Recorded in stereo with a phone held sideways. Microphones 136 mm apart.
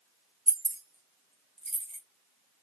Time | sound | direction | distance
0.5 | keys jangling | 75° right (ahead or behind) | 0.8 m